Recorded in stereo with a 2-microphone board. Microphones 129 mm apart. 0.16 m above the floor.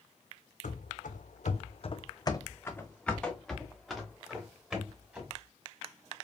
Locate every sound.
0.6 s running footsteps: 75° left (ahead or behind), 0.8 m; by 5.3 s 10° right (ahead or behind), 2.5 m